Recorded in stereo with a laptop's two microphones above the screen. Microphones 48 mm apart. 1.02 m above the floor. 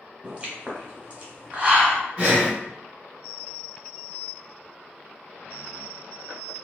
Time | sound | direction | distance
0.2 | a pop | 30° right (ahead or behind) | 0.8 m
2.2 | breathing | 30° right (ahead or behind) | 0.9 m